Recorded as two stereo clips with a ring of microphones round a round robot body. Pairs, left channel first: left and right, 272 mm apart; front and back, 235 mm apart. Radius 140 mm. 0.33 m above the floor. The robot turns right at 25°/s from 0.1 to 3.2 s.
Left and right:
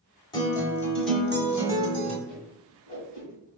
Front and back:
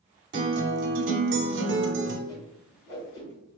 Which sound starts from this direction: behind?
A guitar, at 0.3 s.